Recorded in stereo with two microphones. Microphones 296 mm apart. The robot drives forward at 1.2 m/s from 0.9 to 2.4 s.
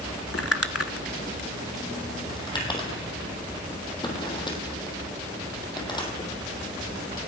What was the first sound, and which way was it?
Crumpling, 50° left (ahead or behind).